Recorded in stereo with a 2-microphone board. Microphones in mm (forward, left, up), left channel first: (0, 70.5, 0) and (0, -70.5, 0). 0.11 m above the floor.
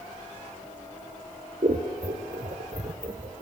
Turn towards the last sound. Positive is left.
turn(degrees=-60)  # may be behind; listen again after turning